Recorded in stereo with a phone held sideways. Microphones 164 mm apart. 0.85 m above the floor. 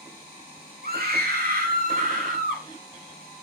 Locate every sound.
0.8 s a scream: 70° right (ahead or behind), 1.8 m; by 2.7 s 60° right (ahead or behind), 4 m